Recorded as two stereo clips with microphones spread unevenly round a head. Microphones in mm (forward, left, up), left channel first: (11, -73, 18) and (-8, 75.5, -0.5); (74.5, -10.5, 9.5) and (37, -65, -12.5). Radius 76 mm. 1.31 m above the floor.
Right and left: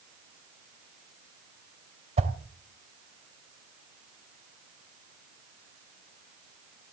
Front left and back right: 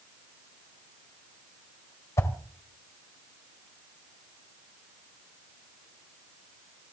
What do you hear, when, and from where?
2.2 s a whoosh: 50° left, 2 m